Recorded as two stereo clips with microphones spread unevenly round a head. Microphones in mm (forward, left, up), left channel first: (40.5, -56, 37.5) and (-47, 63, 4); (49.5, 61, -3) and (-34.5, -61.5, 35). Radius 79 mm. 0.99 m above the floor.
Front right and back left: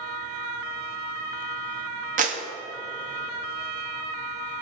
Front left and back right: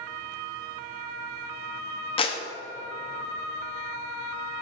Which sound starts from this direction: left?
A clap, at 2.2 s.